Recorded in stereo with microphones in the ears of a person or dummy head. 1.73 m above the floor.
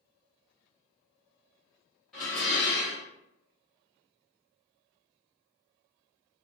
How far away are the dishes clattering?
About 0.8 m.